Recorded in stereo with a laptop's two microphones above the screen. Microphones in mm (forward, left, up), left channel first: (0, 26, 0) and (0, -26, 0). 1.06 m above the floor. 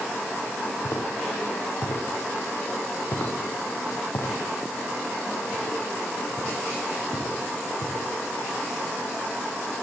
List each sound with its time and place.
0.8 s footsteps: 60° left (ahead or behind), 6 m; by 8.1 s 80° left, 7 m